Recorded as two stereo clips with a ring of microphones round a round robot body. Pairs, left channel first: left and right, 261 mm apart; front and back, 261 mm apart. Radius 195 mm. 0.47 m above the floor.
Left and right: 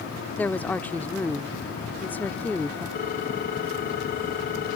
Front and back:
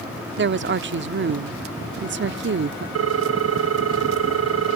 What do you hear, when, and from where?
0.4 s a woman speaking: 170° left
3.0 s a ringtone: 155° left